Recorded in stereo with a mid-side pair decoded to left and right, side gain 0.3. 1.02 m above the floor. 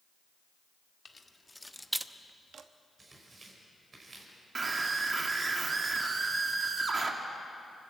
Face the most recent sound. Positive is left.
turn(degrees=-50)